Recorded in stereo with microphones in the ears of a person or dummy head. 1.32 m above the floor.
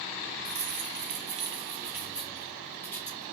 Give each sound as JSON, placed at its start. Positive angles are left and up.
{"t": 0.5, "sound": "keys jangling", "side_deg": -65, "distance_m": 1.0}